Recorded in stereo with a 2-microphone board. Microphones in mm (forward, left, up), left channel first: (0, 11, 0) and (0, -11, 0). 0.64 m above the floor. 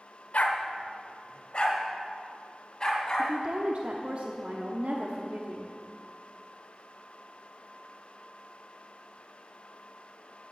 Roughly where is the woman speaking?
Right.